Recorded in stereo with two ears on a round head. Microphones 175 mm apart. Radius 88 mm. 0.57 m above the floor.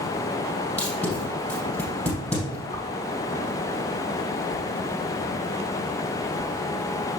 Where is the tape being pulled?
10° left (ahead or behind), 4 m.